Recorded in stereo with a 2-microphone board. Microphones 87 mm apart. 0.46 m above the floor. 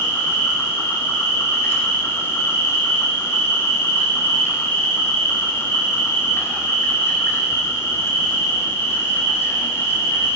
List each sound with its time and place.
0.0 s an insect: 30° left (ahead or behind), 1.0 m